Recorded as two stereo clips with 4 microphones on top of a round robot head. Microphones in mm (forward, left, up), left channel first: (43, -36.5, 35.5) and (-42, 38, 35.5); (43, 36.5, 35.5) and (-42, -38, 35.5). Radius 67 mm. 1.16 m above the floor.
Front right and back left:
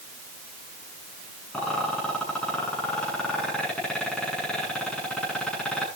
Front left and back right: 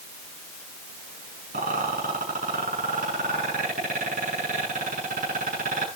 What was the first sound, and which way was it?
A rattle, 125° right.